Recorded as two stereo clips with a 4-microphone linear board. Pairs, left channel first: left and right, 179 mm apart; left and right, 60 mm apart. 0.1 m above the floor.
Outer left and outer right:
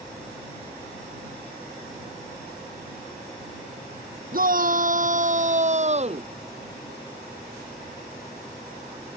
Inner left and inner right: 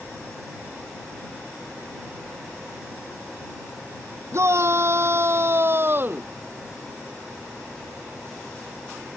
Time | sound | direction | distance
4.3 | a shout | 55° right (ahead or behind) | ?